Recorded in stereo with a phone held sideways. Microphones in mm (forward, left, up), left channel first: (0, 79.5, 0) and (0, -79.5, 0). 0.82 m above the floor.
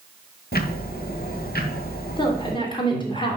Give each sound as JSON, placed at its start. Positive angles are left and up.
{"t": 0.5, "sound": "ticking", "side_deg": 75, "distance_m": 1.6}
{"t": 2.2, "sound": "a woman speaking", "side_deg": 30, "distance_m": 2.5}